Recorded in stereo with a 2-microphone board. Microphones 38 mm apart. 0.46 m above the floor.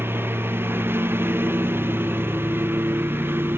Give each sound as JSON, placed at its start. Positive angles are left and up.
{"t": 0.0, "sound": "a lawn mower", "side_deg": -85}